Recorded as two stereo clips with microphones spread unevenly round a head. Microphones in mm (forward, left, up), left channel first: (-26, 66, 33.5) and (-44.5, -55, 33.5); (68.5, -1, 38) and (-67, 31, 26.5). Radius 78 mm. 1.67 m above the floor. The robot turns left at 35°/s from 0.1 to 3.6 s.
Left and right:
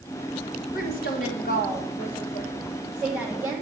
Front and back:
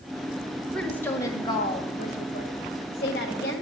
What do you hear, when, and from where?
0.7 s a woman speaking: 70° left, 1.5 m; by 3.6 s 30° right, 1.5 m